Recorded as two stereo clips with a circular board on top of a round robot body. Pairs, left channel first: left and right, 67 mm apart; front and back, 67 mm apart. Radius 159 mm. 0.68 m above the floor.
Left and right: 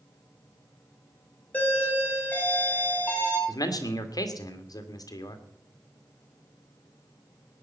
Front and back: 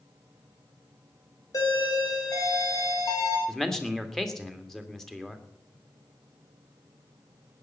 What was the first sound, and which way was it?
A doorbell, 25° left.